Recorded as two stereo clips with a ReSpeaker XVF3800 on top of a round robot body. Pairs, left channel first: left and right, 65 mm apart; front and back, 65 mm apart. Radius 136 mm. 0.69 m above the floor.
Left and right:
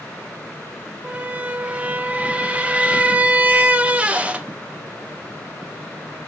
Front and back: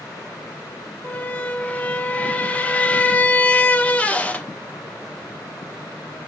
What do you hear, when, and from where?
1.0 s a squeak: 45° right, 0.6 m